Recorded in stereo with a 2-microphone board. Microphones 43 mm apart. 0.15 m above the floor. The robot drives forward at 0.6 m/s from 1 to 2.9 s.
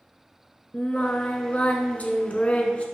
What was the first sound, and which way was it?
Singing, 30° left (ahead or behind).